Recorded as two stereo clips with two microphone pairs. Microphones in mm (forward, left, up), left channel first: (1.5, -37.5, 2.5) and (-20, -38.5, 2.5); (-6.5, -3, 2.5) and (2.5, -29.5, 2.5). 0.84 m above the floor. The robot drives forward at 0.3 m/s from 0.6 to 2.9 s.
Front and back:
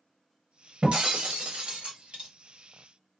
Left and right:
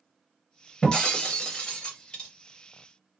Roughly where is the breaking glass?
Behind.